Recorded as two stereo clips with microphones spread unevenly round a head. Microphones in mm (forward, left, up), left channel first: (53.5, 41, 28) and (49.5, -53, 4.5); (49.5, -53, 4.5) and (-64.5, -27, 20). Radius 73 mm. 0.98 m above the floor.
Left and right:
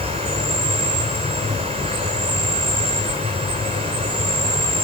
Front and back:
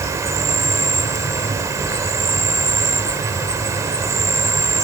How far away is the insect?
About 3.5 m.